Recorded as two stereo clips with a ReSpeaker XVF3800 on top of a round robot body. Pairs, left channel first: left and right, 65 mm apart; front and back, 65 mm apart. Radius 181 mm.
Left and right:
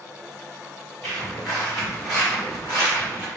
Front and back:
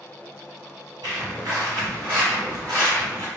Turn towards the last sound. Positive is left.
turn(degrees=85)